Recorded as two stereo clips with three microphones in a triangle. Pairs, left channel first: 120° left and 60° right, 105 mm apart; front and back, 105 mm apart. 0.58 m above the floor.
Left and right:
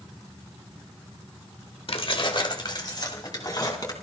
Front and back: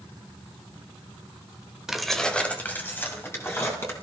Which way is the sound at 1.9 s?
95° left.